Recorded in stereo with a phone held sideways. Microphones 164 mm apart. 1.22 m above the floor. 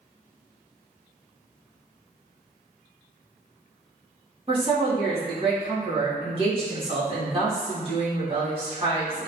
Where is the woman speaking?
35° right (ahead or behind), 1.8 m.